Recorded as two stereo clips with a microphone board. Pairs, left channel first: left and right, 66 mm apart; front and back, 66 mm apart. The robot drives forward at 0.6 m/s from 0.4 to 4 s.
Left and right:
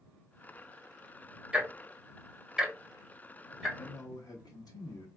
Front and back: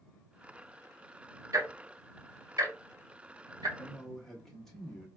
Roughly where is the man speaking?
Left.